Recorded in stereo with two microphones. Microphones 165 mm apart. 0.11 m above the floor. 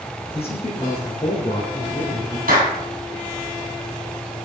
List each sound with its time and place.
0.3 s a man speaking: 40° left (ahead or behind), 3 m; by 2.4 s 30° left (ahead or behind), 1.8 m
2.5 s a clap: 70° right (ahead or behind), 2.5 m